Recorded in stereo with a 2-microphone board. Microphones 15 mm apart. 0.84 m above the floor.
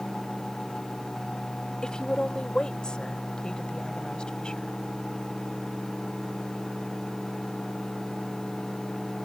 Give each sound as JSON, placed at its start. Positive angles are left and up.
{"t": 1.8, "sound": "a woman speaking", "side_deg": 75}